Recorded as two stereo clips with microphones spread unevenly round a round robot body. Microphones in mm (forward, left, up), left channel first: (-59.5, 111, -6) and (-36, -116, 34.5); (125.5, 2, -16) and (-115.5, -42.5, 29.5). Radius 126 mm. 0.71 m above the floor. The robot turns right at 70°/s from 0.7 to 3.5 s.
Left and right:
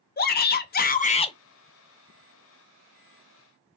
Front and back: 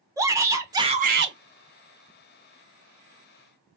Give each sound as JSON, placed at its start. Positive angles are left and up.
{"t": 0.2, "sound": "a shout", "azimuth_deg": 105, "distance_m": 0.7}